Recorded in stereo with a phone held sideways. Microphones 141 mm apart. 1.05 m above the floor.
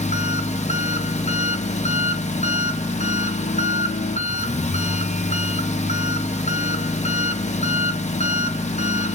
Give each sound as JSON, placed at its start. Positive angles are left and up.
{"t": 0.0, "sound": "an engine running", "side_deg": 55, "distance_m": 0.9}